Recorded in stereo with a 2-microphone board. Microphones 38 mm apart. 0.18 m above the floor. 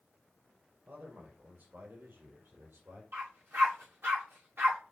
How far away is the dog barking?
About 6 m.